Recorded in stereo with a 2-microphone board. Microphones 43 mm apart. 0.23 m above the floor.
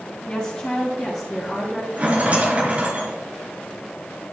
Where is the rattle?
30° right (ahead or behind), 2 m.